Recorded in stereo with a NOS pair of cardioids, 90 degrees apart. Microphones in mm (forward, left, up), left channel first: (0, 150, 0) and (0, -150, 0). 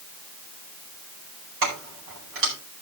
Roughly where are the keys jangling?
Ahead right.